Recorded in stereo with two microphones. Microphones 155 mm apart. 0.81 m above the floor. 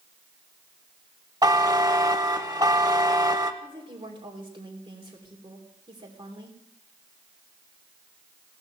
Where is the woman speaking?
35° right (ahead or behind), 3 m.